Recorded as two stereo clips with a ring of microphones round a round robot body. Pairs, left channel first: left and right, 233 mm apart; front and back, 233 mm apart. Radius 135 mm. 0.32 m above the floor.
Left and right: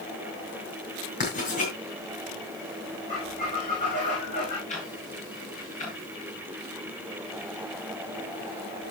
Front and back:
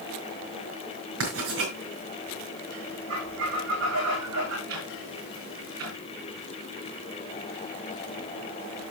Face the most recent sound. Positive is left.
turn(degrees=150)